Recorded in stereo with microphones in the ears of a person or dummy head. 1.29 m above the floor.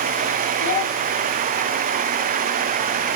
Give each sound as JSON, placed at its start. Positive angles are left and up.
{"t": 0.6, "sound": "a child speaking", "side_deg": 40, "distance_m": 5.5}